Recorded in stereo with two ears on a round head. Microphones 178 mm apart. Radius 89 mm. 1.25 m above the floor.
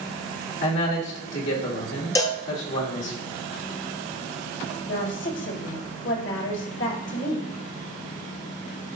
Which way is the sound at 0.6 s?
70° left (ahead or behind).